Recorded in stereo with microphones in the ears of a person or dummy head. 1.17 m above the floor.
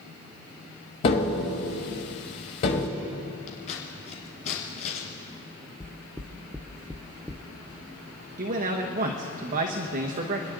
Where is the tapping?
30° left (ahead or behind), 1.1 m.